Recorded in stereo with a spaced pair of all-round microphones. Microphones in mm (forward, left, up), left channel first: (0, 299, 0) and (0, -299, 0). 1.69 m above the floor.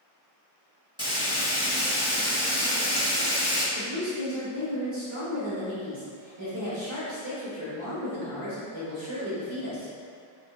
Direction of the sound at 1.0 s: 10° right (ahead or behind).